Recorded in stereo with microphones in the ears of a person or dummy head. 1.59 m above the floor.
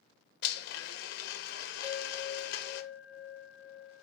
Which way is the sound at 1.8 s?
10° right (ahead or behind).